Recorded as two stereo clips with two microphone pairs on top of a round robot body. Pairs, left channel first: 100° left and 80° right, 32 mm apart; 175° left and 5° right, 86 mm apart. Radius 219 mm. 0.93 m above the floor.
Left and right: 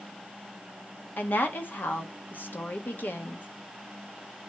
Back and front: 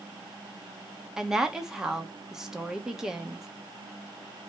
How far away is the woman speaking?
About 1.5 m.